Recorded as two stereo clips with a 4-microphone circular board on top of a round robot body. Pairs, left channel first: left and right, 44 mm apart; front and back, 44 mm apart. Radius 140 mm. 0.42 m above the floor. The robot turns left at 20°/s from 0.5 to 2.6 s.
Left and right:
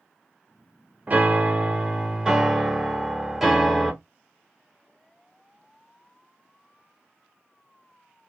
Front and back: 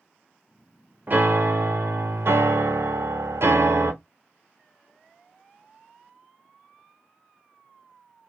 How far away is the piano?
About 0.7 m.